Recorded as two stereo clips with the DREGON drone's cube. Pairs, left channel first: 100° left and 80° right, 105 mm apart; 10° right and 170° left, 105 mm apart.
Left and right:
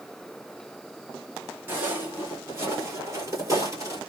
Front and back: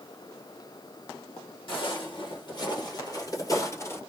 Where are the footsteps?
15° right, 2.5 m; by 4.0 s 55° right, 1.6 m.